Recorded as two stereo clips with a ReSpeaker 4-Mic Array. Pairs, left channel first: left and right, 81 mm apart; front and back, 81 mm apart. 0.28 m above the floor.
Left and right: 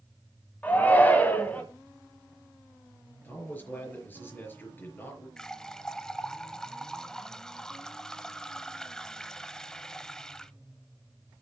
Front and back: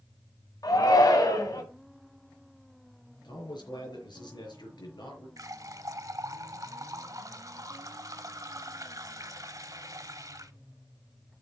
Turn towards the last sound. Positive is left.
turn(degrees=170)